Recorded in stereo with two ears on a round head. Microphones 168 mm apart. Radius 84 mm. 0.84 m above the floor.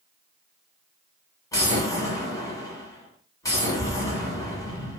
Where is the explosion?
20° left (ahead or behind), 1.3 m.